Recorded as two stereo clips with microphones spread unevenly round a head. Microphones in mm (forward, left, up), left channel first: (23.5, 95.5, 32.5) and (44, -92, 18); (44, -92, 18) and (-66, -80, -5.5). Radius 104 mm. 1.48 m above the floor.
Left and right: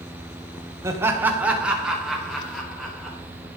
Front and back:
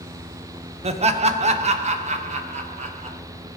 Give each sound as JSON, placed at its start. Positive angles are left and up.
{"t": 0.8, "sound": "laughter", "azimuth_deg": -160, "distance_m": 1.3}